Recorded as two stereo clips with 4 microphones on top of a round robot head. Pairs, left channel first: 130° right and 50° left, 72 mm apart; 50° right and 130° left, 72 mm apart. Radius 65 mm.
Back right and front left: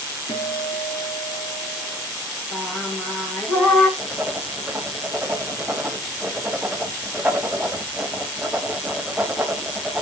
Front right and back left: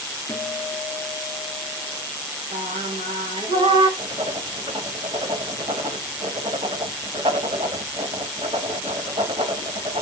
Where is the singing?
150° left, 1.7 m.